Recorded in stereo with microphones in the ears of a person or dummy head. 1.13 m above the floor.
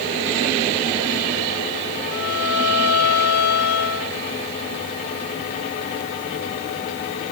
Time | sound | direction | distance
2.1 | a violin | 85° left | 3.5 m